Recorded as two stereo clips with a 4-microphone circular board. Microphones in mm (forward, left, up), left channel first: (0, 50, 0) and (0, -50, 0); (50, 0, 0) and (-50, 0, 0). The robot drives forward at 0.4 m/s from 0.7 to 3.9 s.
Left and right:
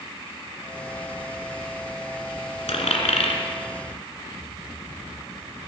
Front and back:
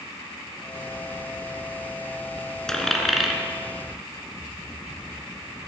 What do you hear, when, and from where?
2.7 s a dropped coin: 85° left, 1.4 m; by 3.4 s 95° left, 1.4 m